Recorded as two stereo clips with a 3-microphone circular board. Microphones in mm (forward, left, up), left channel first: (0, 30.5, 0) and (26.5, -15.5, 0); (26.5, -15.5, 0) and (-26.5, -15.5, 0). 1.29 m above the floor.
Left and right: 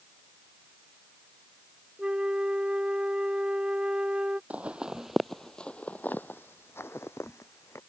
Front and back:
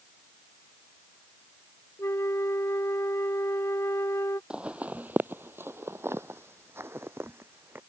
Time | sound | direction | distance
2.0 | a flute | 10° left | ?
4.5 | footsteps | 115° right | ?